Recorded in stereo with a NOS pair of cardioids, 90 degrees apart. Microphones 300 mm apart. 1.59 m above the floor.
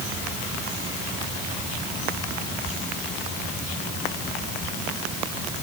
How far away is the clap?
No clap in this recording.